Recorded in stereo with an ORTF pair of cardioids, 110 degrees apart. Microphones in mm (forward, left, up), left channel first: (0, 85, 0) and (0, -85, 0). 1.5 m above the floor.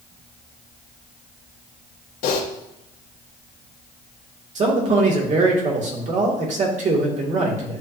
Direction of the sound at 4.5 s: 45° right.